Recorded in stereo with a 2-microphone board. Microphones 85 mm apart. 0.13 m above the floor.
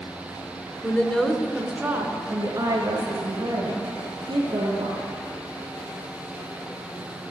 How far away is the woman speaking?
About 1.2 m.